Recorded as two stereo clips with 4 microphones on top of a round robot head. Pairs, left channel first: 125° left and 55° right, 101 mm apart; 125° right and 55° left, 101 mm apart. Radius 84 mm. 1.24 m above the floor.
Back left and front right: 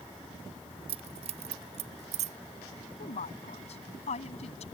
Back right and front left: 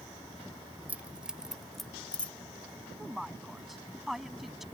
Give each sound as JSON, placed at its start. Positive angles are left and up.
{"t": 0.9, "sound": "keys jangling", "azimuth_deg": -25}
{"t": 3.0, "sound": "a woman speaking", "azimuth_deg": 140}